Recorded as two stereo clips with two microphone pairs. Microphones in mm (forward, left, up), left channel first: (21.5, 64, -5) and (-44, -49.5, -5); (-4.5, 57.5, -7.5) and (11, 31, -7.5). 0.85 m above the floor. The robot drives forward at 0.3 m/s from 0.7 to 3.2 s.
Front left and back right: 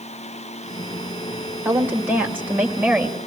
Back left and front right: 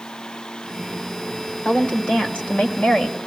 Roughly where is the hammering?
I don't hear hammering.